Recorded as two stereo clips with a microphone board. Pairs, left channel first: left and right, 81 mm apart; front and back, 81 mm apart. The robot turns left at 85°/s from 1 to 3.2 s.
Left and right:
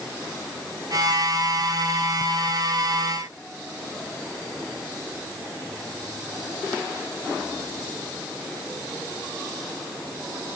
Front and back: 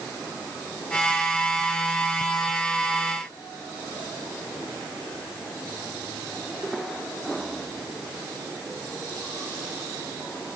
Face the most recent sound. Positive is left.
No sound to turn to.